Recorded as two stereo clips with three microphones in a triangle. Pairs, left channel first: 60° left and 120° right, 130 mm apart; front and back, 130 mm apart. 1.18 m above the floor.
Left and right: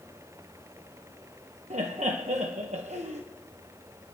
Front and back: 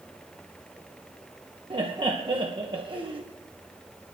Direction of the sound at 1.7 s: 135° right.